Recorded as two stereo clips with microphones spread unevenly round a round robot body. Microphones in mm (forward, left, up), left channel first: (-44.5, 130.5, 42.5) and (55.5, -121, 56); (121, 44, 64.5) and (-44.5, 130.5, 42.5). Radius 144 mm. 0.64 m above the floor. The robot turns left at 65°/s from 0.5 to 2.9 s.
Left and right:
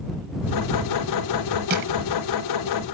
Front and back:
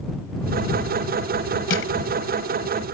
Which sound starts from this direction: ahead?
Crushing, at 1.7 s.